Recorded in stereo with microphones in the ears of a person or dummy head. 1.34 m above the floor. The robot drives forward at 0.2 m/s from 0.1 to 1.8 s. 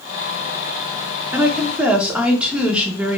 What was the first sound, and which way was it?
A woman speaking, 10° right (ahead or behind).